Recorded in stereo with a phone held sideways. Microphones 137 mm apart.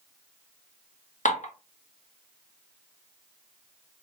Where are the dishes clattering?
75° left (ahead or behind), 0.9 m.